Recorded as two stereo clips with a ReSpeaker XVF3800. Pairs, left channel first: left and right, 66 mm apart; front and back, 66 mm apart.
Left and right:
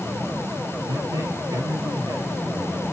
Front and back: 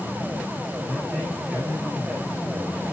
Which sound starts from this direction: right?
A man speaking, at 0.9 s.